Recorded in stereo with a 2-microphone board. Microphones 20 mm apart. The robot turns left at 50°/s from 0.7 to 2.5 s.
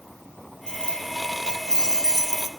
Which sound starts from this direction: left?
Keys jangling, at 0.7 s.